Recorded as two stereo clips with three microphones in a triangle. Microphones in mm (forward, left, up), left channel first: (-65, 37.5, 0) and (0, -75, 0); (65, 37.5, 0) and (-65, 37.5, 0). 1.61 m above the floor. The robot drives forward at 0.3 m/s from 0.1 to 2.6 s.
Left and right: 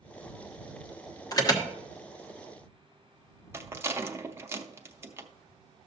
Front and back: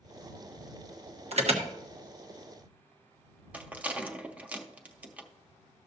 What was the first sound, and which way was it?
An alarm, 175° left.